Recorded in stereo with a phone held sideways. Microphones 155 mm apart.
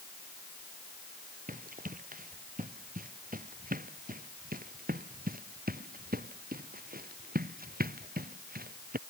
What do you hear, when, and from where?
1.5 s running footsteps: 65° right (ahead or behind); by 9.0 s 85° right